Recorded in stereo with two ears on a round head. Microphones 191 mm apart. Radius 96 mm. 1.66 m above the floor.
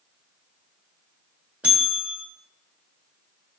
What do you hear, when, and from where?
1.6 s a bell: 5° right (ahead or behind), 1.4 m